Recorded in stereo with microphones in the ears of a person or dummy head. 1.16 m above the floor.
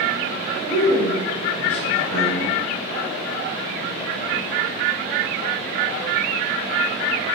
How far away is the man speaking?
About 1.3 m.